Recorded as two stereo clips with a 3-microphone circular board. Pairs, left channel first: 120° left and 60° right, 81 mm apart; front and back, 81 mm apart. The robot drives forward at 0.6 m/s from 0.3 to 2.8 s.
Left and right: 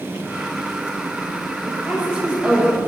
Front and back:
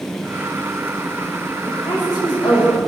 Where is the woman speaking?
20° left, 7 m.